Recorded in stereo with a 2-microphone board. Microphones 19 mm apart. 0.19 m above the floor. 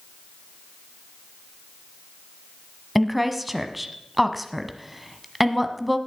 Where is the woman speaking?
10° right (ahead or behind), 1.1 m.